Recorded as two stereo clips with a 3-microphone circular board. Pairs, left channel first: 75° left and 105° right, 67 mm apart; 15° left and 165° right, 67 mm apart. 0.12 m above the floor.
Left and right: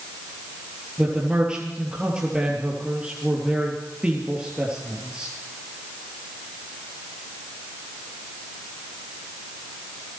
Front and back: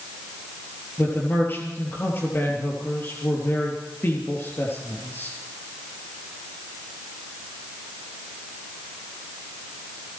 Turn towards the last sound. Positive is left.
turn(degrees=-30)